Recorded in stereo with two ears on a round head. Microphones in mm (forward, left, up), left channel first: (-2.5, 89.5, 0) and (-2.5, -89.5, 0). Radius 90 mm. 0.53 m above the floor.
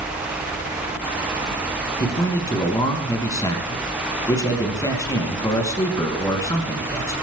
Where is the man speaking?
20° left (ahead or behind), 5 m.